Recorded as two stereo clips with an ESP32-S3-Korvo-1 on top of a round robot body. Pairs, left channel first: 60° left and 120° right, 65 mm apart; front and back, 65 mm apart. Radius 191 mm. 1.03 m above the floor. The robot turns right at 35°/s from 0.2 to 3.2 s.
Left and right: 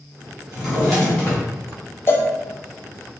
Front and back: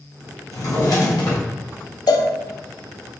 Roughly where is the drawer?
Ahead right.